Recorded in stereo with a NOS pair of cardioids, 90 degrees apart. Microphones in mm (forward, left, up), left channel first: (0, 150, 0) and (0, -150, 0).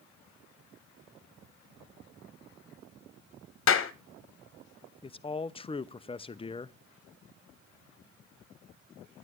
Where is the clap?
45° left, 1.4 m.